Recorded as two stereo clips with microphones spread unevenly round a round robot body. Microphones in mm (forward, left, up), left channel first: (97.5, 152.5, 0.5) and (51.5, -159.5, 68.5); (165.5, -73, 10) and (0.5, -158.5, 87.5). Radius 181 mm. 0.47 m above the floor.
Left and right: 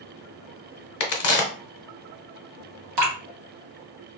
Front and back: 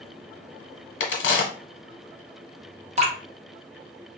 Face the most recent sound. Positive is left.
turn(degrees=-85)